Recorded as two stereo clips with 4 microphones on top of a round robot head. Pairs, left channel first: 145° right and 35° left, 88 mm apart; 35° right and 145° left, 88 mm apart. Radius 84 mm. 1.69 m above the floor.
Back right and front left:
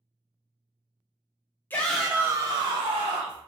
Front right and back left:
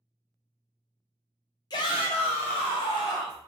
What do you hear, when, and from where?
1.7 s a shout: 80° right, 0.5 m; by 3.4 s 15° left, 0.9 m